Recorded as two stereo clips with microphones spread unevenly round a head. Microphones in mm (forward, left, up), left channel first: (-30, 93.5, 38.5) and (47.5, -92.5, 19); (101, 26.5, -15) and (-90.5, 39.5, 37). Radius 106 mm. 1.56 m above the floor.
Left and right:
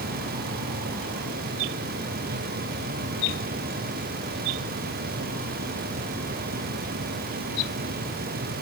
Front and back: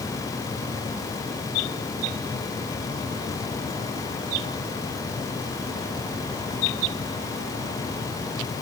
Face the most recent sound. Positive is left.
No sound to turn to.